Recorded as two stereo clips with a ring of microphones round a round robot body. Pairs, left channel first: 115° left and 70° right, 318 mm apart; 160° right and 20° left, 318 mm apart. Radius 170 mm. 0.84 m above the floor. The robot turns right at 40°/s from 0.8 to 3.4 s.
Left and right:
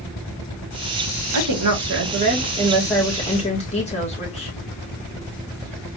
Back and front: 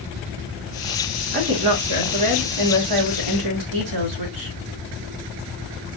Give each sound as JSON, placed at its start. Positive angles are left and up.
{"t": 1.3, "sound": "a woman speaking", "azimuth_deg": -40, "distance_m": 1.9}